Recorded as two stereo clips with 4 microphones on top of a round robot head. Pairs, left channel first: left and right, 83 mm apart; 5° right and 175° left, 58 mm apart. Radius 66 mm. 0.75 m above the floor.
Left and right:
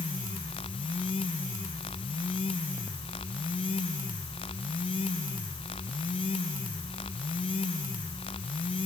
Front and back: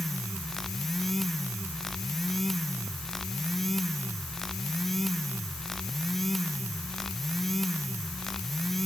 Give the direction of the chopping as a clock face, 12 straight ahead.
I don't hear chopping.